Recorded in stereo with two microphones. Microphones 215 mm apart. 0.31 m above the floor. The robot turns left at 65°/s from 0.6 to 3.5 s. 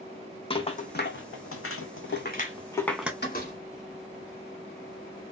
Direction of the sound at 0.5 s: 25° left (ahead or behind).